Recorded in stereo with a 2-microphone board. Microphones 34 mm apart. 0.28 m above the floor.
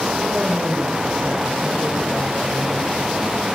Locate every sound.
0.2 s a woman speaking: 55° right (ahead or behind), 7.5 m; by 2.9 s 75° right (ahead or behind), 5.5 m